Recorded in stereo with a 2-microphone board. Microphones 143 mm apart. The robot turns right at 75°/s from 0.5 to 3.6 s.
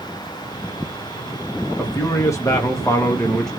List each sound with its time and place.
1.8 s a man speaking: 15° left (ahead or behind), 0.6 m; by 3.5 s 5° left (ahead or behind), 0.6 m